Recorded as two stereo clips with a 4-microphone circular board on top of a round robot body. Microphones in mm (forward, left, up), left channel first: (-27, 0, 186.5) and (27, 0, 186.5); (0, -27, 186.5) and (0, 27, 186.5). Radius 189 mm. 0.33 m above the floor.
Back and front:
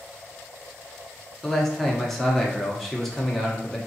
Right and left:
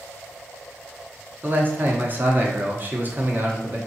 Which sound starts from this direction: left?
A man speaking, at 1.4 s.